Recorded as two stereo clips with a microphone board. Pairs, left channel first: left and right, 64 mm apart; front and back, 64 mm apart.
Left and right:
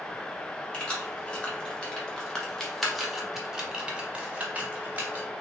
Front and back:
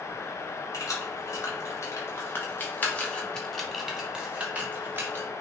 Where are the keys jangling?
20° left, 1.8 m; by 5.2 s 145° right, 1.3 m.